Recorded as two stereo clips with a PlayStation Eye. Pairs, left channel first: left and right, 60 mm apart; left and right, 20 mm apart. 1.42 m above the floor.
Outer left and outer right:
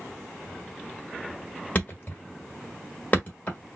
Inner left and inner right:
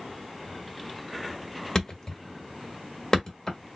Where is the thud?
30° left (ahead or behind), 1.6 m.